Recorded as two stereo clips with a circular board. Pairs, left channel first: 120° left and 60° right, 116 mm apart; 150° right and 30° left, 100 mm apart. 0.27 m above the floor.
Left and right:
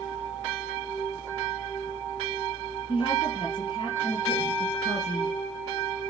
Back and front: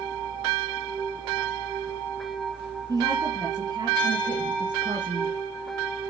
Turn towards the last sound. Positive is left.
turn(degrees=65)